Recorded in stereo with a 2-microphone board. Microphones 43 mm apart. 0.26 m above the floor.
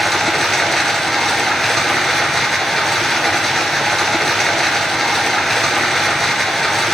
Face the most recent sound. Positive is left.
turn(degrees=5)  # may be behind; listen again after turning